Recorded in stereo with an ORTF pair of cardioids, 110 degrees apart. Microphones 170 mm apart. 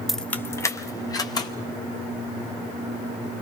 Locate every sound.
0.1 s keys jangling: straight ahead, 0.6 m; by 1.5 s 25° left, 2.5 m